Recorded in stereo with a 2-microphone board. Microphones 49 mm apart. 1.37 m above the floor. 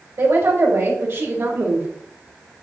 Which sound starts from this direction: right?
A woman speaking, at 0.2 s.